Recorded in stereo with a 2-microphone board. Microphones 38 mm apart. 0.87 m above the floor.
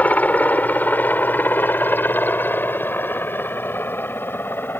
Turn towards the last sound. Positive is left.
turn(degrees=70)  # may be behind; listen again after turning